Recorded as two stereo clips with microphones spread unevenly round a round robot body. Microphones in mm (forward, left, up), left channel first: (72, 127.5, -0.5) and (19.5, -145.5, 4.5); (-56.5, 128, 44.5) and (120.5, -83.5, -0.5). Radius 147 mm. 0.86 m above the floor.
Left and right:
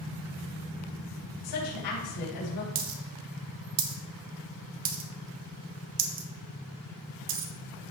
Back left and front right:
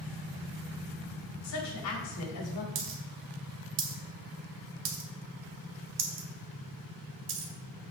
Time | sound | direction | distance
1.4 | a woman speaking | 100° left | 4 m
2.8 | a dropped coin | 100° right | 1.0 m